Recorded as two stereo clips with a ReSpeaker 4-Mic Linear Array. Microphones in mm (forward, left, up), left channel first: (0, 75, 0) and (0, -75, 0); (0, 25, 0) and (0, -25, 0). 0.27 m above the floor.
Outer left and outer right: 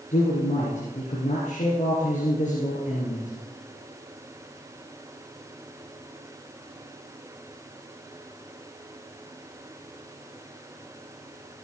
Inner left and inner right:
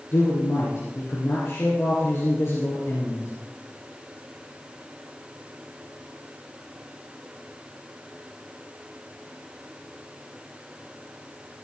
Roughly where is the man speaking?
Left.